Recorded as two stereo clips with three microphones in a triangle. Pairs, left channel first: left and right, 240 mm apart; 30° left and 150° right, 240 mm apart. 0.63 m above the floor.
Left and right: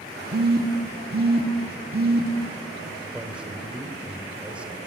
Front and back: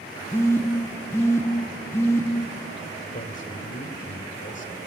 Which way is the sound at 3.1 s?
5° right.